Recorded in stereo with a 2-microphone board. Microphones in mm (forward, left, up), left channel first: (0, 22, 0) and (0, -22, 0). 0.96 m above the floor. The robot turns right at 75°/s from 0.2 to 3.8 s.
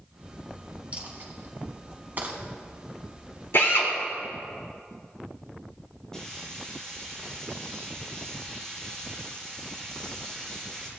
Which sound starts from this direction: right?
A dropped coin, at 0.9 s.